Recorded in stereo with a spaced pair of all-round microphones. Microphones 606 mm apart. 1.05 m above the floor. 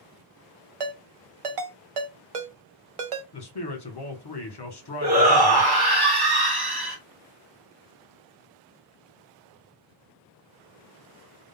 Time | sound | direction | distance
0.8 | a ringtone | 60° right (ahead or behind) | 0.6 m
3.3 | a man speaking | 40° left (ahead or behind) | 1.0 m
5.0 | a shout | 40° right (ahead or behind) | 1.2 m